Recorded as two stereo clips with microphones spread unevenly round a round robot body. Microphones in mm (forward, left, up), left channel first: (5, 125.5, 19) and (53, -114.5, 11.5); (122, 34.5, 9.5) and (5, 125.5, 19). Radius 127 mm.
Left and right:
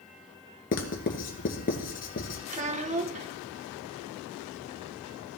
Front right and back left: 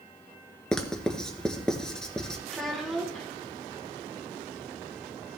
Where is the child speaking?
125° right, 0.8 m.